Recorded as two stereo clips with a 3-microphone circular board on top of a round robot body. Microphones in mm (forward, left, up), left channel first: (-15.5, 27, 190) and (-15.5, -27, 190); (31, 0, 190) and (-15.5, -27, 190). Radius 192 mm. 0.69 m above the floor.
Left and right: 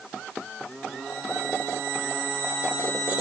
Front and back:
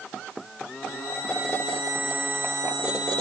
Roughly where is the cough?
No cough in this recording.